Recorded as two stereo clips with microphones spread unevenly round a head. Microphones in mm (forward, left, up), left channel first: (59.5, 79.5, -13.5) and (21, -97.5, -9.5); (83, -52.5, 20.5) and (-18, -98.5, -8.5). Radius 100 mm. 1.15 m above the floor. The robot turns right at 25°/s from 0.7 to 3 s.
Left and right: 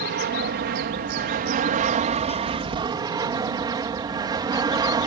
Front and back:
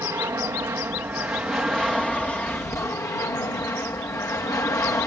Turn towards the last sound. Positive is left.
turn(degrees=-40)